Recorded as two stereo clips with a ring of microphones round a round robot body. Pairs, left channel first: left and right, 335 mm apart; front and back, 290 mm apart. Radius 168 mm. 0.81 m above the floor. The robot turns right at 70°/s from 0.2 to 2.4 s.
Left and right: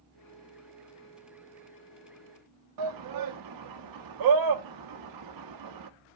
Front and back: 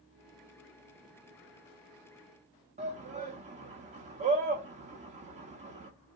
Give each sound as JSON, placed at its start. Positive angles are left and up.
{"t": 2.8, "sound": "a shout", "azimuth_deg": -110, "distance_m": 1.0}